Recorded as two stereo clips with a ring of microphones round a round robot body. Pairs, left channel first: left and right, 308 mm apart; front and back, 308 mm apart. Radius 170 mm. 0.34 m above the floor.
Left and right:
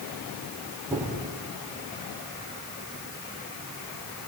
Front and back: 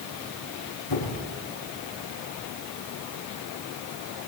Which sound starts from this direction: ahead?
A squeak, at 0.9 s.